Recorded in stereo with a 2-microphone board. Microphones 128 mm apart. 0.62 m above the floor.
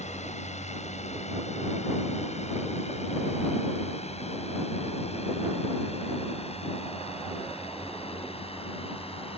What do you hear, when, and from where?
0.0 s a drone: 60° left (ahead or behind); by 9.4 s 45° left (ahead or behind)